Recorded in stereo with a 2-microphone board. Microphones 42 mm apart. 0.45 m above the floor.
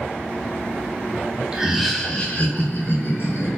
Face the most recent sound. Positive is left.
turn(degrees=50)  # may be behind; listen again after turning